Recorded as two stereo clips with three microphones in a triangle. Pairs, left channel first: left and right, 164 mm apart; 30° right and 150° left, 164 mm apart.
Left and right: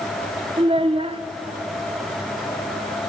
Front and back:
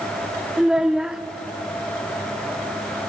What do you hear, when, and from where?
0.6 s a child speaking: 125° right, 0.5 m